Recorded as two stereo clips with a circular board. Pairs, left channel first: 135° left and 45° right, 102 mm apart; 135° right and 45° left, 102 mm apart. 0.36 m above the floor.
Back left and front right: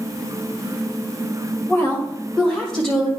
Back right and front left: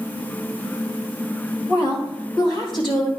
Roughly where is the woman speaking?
Behind.